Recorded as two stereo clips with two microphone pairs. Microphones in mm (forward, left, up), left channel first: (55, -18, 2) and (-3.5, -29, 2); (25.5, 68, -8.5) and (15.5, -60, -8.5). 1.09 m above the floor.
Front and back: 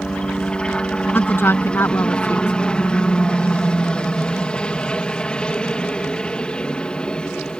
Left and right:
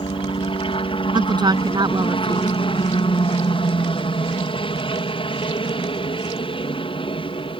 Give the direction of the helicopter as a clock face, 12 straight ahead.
9 o'clock.